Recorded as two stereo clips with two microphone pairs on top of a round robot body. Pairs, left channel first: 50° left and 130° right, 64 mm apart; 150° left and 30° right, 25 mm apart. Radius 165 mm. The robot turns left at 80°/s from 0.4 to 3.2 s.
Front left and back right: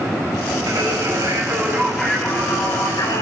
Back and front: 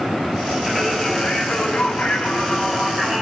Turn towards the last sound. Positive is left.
turn(degrees=40)